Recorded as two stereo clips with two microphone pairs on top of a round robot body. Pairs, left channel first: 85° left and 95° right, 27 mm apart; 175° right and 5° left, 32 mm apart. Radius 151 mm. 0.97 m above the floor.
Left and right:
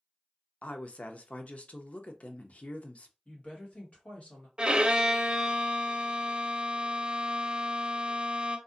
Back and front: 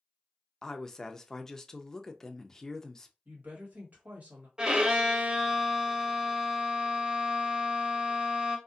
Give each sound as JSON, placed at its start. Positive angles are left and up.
{"t": 0.6, "sound": "a woman speaking", "azimuth_deg": 120, "distance_m": 0.7}
{"t": 3.2, "sound": "a woman speaking", "azimuth_deg": 40, "distance_m": 1.5}
{"t": 4.6, "sound": "a violin", "azimuth_deg": -60, "distance_m": 0.7}